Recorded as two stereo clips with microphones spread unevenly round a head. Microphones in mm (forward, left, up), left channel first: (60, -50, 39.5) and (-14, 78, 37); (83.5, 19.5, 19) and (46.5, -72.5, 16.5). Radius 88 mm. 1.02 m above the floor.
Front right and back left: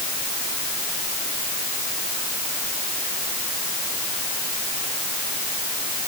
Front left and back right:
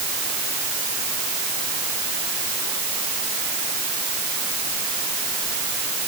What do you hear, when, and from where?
Only background noise.